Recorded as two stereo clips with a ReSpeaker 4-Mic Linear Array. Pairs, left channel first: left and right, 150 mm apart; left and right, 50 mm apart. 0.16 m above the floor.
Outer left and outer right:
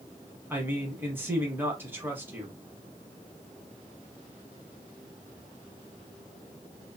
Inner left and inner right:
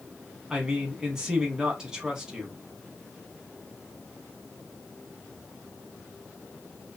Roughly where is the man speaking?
Centre.